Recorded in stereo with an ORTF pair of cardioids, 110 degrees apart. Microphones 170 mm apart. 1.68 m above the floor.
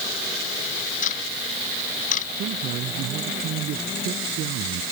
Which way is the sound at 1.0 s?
50° left.